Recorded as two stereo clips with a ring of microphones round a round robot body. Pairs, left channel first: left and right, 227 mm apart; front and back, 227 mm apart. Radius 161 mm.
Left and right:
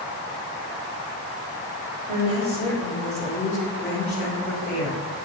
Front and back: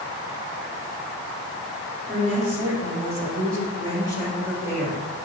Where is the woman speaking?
145° right, 1.1 m; by 5.0 s 145° left, 1.6 m.